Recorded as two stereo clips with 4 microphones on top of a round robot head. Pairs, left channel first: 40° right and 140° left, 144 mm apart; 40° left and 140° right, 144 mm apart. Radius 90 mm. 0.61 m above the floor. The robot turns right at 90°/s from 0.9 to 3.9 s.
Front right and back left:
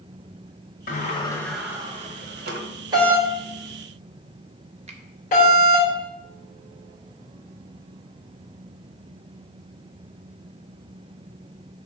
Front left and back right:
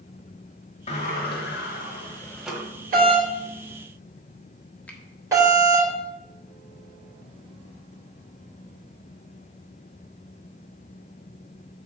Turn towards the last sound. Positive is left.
turn(degrees=120)